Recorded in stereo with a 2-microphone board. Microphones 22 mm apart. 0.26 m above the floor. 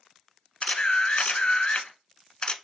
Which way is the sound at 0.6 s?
45° left (ahead or behind).